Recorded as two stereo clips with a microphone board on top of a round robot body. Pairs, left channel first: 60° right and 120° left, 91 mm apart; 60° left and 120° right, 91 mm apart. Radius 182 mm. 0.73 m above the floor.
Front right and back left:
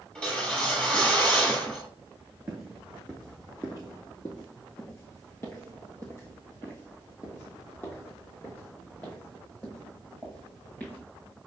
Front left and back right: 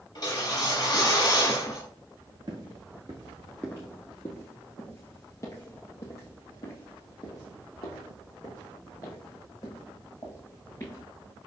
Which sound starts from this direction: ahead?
A whoosh, at 0.1 s.